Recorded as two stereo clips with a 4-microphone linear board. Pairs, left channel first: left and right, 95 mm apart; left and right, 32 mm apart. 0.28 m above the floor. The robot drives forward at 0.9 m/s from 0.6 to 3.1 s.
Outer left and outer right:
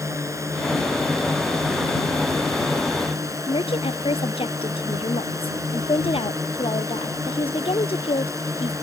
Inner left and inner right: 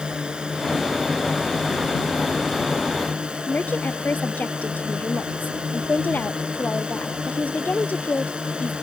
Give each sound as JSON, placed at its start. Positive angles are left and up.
{"t": 0.0, "sound": "a drone", "side_deg": -30}
{"t": 3.5, "sound": "a woman speaking", "side_deg": 80}